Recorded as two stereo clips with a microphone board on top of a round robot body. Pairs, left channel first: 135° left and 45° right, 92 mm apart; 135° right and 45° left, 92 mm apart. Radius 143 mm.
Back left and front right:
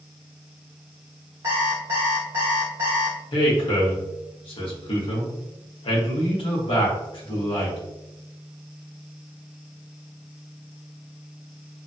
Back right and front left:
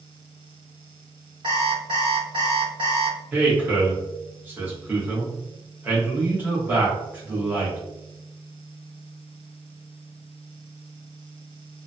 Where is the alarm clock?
15° left, 0.6 m.